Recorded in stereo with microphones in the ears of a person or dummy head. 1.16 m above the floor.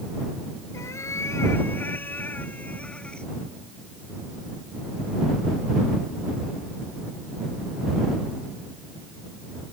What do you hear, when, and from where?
0.7 s a cat meowing: 20° left (ahead or behind); by 3.3 s 10° left (ahead or behind)